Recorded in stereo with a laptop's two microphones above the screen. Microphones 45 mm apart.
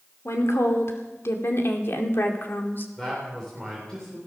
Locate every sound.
0.2 s a woman speaking: 80° left, 2.5 m; by 2.9 s 50° left (ahead or behind), 2.5 m
3.0 s a man speaking: 15° left (ahead or behind), 3.5 m